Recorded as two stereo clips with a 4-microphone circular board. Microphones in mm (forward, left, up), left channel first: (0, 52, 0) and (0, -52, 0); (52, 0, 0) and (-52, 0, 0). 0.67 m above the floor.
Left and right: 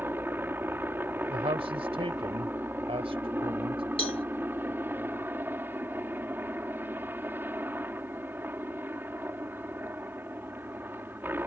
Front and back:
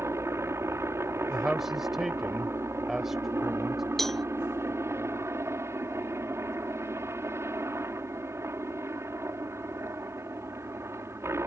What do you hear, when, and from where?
0.0 s a helicopter: 140° right
1.3 s a man speaking: 95° right
4.0 s a cowbell: 85° left